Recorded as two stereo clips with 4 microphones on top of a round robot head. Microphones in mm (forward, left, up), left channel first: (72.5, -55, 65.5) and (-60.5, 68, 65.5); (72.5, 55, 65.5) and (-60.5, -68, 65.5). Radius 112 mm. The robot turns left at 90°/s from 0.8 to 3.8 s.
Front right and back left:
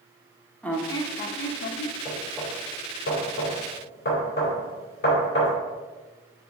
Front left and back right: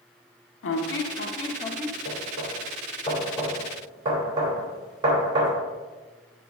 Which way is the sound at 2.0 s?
85° left.